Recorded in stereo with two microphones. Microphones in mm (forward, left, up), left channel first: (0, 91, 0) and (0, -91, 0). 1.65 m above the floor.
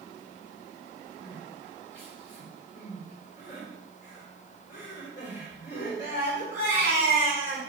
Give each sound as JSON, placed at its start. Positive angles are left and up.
{"t": 1.2, "sound": "crying", "side_deg": 75, "distance_m": 3.5}